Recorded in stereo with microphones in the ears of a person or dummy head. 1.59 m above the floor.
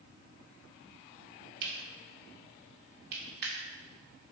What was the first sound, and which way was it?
Cutlery clinking, 55° right (ahead or behind).